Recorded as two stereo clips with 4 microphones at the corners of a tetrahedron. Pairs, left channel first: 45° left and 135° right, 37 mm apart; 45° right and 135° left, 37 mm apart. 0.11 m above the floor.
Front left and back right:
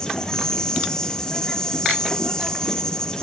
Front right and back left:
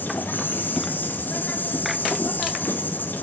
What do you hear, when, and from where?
0.0 s an insect: 25° right, 2 m